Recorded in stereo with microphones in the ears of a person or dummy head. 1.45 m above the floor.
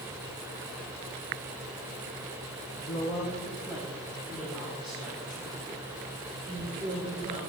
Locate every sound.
2.8 s a woman speaking: 30° left (ahead or behind), 0.6 m; by 7.4 s 10° right (ahead or behind), 3 m